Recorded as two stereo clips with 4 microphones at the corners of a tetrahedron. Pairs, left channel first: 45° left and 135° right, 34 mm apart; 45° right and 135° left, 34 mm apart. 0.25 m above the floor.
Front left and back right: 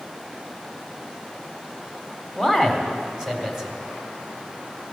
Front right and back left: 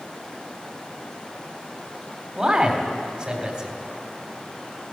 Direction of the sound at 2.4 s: 165° left.